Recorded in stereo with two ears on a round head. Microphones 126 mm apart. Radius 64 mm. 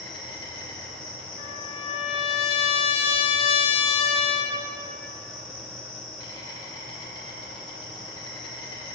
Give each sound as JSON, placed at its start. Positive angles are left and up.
{"t": 0.0, "sound": "an insect", "side_deg": 35, "distance_m": 3.0}
{"t": 1.4, "sound": "a trumpet", "side_deg": 40, "distance_m": 0.9}